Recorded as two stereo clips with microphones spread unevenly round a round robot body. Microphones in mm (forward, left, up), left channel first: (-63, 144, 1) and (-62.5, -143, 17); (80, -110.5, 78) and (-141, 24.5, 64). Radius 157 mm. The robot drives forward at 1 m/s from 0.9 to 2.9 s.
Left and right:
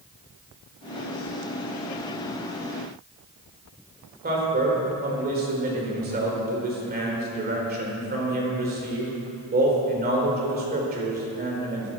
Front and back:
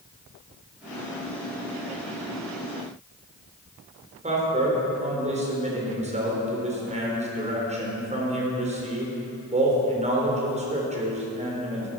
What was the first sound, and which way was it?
A man speaking, 150° right.